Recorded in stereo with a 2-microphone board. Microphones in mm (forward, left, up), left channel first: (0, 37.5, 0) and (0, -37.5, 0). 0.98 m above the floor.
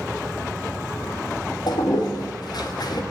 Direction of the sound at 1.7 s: 65° left (ahead or behind).